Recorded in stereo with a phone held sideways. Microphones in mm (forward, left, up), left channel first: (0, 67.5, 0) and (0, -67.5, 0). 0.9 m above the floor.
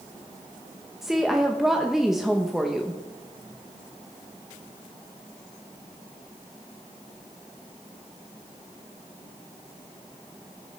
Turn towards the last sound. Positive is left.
turn(degrees=-5)  # may be behind; listen again after turning